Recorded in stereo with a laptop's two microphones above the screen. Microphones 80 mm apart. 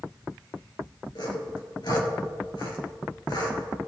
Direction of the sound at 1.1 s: 65° left (ahead or behind).